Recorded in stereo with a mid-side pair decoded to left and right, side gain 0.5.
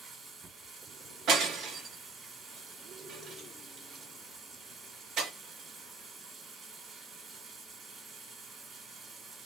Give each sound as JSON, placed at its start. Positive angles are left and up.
{"t": 0.0, "sound": "running water", "azimuth_deg": -35, "distance_m": 1.6}
{"t": 1.3, "sound": "breaking glass", "azimuth_deg": -65, "distance_m": 1.4}